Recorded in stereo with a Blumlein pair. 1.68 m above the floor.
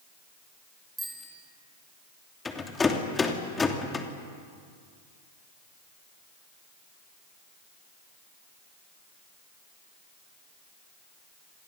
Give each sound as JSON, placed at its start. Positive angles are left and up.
{"t": 1.0, "sound": "a bicycle bell", "azimuth_deg": 0, "distance_m": 7.0}
{"t": 2.5, "sound": "a rattle", "azimuth_deg": 15, "distance_m": 3.0}